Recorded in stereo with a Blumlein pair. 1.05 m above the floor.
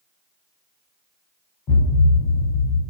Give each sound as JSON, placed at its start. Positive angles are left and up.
{"t": 1.7, "sound": "a thud", "azimuth_deg": 35, "distance_m": 0.9}